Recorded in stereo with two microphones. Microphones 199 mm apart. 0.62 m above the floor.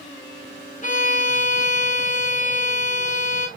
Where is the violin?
40° left (ahead or behind), 1.5 m.